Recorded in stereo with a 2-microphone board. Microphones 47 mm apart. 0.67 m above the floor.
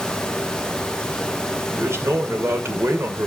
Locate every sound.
1.7 s a man speaking: 70° right (ahead or behind), 2 m